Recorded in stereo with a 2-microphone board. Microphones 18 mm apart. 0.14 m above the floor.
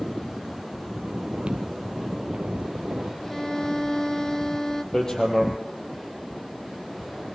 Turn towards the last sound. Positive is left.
turn(degrees=35)  # may be behind; listen again after turning